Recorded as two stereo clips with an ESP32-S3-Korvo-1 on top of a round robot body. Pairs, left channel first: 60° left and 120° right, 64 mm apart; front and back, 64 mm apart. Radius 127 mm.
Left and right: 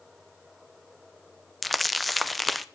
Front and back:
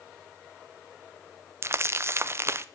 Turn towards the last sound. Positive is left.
turn(degrees=150)